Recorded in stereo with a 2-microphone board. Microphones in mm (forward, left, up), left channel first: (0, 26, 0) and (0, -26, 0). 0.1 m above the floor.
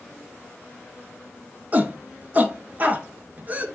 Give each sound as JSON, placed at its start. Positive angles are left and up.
{"t": 1.7, "sound": "a shout", "side_deg": -30, "distance_m": 1.3}